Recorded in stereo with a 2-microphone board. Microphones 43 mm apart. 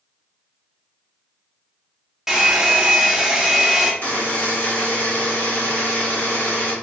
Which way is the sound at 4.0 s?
35° left (ahead or behind).